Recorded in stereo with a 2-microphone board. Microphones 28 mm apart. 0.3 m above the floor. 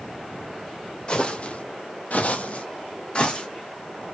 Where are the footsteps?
30° left (ahead or behind), 0.7 m; by 3.5 s 40° left (ahead or behind), 1.1 m.